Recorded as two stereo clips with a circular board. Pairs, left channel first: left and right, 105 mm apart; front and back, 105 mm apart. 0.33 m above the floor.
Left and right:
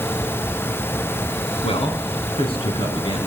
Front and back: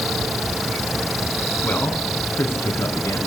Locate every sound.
1.6 s a man speaking: 75° left, 4 m; by 3.2 s 60° left, 5.5 m